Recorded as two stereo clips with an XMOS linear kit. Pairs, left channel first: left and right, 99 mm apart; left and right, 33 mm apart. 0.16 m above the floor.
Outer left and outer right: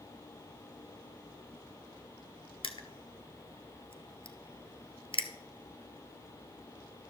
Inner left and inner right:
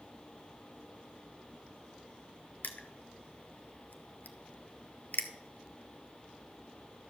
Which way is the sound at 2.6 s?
60° left (ahead or behind).